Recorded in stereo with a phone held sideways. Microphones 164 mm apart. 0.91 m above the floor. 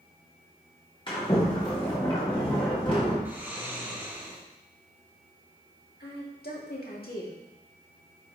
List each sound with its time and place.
1.1 s a sliding door: 30° left (ahead or behind), 2.5 m
3.2 s snoring: 10° right (ahead or behind), 2 m
6.0 s a woman speaking: 70° left (ahead or behind), 2 m